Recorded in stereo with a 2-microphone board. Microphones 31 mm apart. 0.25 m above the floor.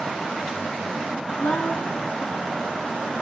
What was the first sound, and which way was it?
A woman speaking, 60° left (ahead or behind).